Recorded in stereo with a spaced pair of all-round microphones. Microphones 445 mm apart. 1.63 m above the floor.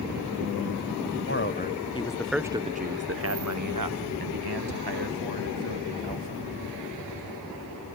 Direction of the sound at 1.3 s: 30° left (ahead or behind).